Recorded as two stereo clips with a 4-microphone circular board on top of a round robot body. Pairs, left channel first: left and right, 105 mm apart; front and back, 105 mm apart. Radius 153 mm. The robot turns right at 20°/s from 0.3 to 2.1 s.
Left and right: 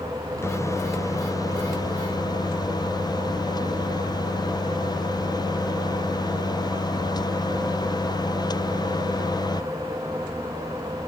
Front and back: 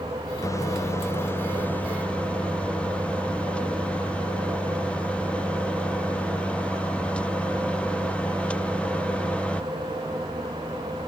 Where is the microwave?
40° left; by 9.6 s 75° left.